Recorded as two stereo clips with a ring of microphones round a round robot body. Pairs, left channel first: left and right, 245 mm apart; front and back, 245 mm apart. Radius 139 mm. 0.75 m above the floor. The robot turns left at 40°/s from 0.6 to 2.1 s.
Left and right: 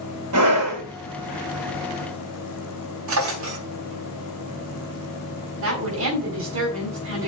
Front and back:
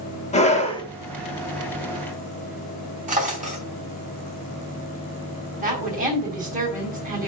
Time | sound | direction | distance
0.3 | a scream | 65° right | 3 m
3.1 | a drawer | 120° right | 4 m
5.6 | a woman speaking | 120° right | 4 m